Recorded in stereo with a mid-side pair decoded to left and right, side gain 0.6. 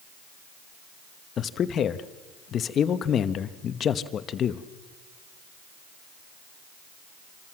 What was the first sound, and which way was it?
A man speaking, 45° left.